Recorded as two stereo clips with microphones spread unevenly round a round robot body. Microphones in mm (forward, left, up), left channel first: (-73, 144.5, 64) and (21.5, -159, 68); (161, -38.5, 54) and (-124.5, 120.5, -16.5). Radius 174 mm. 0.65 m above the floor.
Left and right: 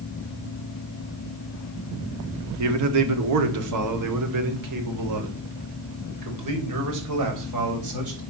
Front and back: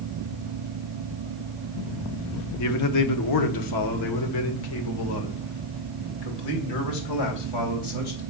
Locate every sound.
2.6 s a man speaking: 75° right, 1.5 m; by 8.2 s 45° right, 4.5 m